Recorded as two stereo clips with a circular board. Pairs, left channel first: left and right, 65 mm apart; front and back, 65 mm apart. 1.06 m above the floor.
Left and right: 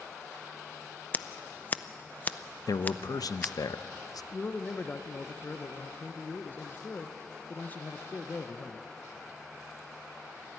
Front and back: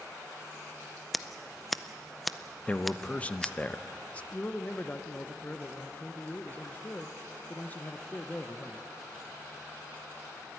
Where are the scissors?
90° left, 0.5 m.